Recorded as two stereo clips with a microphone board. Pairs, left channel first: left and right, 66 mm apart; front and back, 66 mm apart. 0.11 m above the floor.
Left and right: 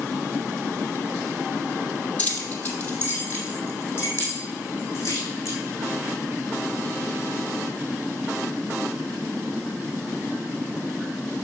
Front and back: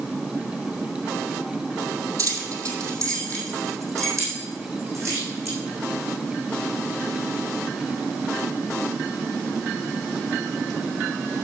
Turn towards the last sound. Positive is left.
turn(degrees=135)